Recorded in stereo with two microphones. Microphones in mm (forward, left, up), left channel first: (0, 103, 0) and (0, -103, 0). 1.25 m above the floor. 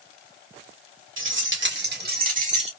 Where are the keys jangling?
75° right (ahead or behind), 2 m; by 2.7 s 30° right (ahead or behind), 1.8 m.